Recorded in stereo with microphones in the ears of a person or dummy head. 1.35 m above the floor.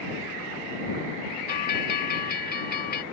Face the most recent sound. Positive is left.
turn(degrees=50)  # may be behind; listen again after turning